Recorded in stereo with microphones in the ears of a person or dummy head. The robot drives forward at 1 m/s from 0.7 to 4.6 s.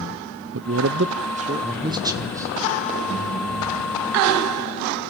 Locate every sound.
0.5 s a man speaking: 60° right (ahead or behind), 0.6 m; by 2.5 s 15° right (ahead or behind), 1.8 m